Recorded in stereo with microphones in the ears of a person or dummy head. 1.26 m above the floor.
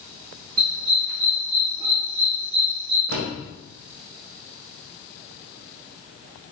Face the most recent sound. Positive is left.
turn(degrees=-65)  # may be behind; listen again after turning